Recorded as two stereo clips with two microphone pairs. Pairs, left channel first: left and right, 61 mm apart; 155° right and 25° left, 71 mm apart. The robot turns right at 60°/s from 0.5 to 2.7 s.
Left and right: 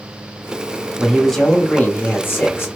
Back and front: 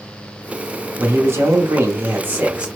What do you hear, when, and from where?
1.0 s a man speaking: 10° right, 0.8 m; by 2.7 s 90° left, 0.8 m